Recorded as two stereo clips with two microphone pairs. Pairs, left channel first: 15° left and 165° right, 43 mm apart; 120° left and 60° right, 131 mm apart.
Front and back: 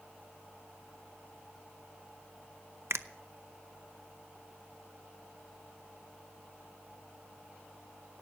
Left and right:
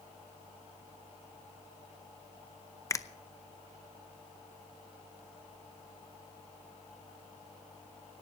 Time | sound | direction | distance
2.9 | a finger snap | 175° right | 0.7 m